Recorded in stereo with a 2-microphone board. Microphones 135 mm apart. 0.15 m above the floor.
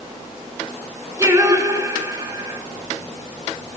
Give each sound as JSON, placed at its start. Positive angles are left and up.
{"t": 1.2, "sound": "singing", "side_deg": -25, "distance_m": 1.3}